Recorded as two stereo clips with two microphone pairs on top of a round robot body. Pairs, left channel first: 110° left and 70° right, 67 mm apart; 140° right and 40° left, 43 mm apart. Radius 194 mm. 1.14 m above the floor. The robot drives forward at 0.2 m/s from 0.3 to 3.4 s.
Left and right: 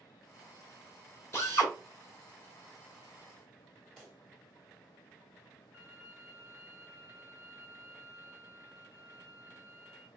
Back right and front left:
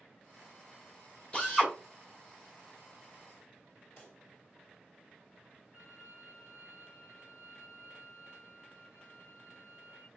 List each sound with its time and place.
1.3 s a drill: 155° left, 1.9 m
4.0 s a pop: 170° right, 1.4 m
5.7 s a violin: 165° left, 1.7 m